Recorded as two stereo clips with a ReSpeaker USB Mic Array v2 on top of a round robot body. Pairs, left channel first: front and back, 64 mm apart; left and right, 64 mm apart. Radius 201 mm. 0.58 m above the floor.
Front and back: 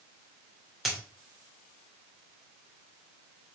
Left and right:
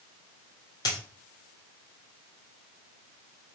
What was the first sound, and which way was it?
A dropped coin, 90° left.